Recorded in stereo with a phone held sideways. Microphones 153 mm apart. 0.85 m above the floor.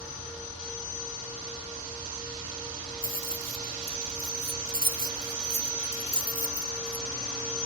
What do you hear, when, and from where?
3.0 s keys jangling: 65° right (ahead or behind); by 7.0 s 20° right (ahead or behind)